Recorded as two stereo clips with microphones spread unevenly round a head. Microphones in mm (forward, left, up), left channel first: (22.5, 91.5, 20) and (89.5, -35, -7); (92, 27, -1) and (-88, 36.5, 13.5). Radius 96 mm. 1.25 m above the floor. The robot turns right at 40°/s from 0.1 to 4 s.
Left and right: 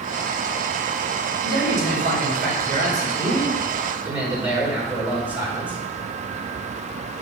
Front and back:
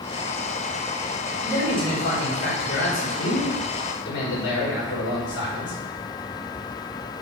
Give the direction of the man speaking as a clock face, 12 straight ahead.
3 o'clock.